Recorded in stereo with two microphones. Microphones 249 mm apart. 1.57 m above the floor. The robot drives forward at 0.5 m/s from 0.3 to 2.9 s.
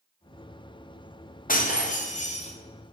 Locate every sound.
1.5 s breaking glass: 35° left (ahead or behind), 0.9 m; by 2.5 s 25° left (ahead or behind), 1.2 m